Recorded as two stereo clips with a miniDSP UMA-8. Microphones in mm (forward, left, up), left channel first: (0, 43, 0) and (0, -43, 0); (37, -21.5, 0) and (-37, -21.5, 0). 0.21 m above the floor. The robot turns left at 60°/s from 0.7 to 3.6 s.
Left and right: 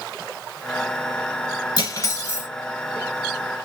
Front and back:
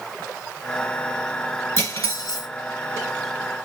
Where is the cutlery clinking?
55° left, 1.7 m; by 2.5 s 10° left, 1.7 m.